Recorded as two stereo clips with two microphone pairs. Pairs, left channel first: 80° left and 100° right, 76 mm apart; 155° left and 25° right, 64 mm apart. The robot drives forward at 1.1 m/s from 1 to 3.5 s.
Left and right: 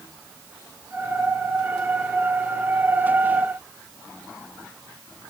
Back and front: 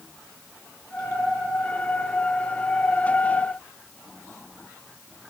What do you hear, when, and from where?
Only background noise.